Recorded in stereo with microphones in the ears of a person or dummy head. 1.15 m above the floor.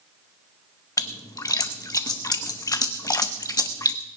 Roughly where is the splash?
Left.